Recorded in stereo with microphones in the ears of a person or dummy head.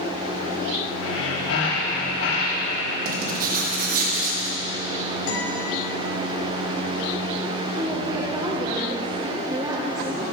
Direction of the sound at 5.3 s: 70° left (ahead or behind).